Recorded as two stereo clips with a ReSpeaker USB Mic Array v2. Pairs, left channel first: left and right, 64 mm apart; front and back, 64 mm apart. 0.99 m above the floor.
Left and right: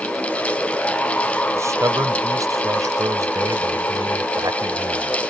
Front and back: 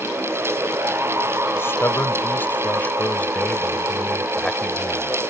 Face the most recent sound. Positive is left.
turn(degrees=-85)